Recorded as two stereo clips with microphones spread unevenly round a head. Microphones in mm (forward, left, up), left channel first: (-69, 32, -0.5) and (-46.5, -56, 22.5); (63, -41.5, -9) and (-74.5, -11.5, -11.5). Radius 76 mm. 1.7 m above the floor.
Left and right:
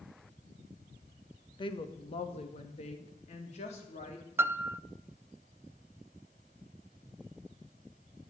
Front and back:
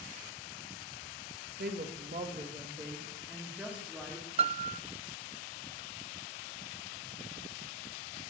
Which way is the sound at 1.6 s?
140° left.